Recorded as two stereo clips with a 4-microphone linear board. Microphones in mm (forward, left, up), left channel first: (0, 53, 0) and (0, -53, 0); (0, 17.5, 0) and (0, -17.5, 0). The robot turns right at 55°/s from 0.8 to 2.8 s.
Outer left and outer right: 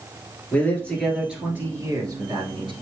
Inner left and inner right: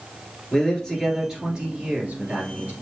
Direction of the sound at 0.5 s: 165° left.